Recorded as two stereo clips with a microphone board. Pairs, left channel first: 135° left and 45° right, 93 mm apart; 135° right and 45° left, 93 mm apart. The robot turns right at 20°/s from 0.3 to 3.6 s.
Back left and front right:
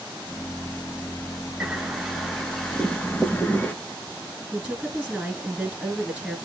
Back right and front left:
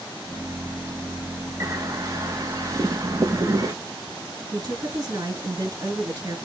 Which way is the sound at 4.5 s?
30° left.